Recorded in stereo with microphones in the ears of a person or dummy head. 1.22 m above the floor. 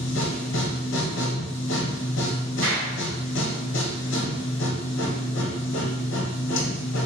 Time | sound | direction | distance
0.0 | a machine running | 60° left (ahead or behind) | 0.7 m
2.6 | a clap | 65° right (ahead or behind) | 2.0 m